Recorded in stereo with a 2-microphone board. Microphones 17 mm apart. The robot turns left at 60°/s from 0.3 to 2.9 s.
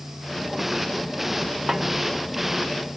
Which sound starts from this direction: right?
A snare drum, at 1.7 s.